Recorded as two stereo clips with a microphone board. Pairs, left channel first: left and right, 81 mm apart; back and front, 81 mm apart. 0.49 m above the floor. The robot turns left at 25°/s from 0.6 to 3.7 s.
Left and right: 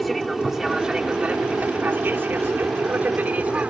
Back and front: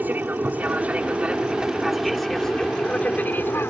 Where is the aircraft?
Straight ahead; by 3.7 s 150° right.